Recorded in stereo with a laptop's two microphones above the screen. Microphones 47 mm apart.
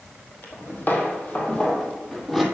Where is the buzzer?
No buzzer in this recording.